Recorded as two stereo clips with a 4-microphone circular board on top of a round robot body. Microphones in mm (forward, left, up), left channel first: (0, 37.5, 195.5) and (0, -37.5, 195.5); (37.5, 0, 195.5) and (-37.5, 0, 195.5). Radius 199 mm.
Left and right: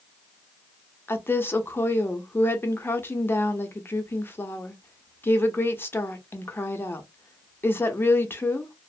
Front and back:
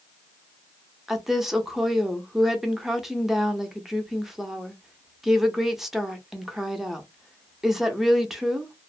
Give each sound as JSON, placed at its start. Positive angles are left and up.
{"t": 1.1, "sound": "a woman speaking", "azimuth_deg": 100, "distance_m": 0.9}